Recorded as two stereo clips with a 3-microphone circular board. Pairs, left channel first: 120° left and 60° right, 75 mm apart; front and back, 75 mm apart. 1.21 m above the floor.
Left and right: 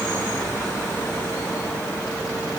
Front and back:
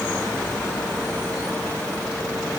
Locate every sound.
Only background noise.